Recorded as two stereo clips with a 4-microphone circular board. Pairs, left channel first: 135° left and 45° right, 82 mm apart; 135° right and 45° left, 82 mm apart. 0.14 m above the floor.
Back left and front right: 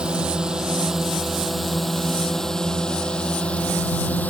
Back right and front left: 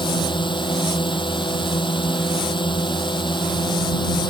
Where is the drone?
125° right; by 4.3 s 155° right.